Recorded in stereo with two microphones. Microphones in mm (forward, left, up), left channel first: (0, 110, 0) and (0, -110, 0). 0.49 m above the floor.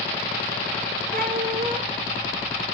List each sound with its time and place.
1.1 s a cat meowing: 40° right (ahead or behind), 2 m